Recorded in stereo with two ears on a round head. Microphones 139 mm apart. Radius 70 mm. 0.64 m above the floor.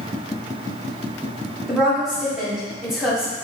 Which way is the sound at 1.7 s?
Centre (ahead or behind).